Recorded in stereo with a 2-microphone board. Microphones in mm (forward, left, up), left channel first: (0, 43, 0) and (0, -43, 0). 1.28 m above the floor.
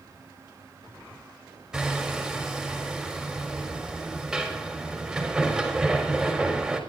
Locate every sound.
1.7 s hammering: 5° right (ahead or behind), 4 m